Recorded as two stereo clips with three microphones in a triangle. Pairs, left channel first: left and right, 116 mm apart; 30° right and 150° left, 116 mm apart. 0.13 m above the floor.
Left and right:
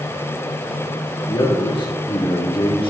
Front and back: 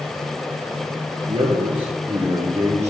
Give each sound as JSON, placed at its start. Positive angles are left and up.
{"t": 1.3, "sound": "a man speaking", "azimuth_deg": 130, "distance_m": 2.0}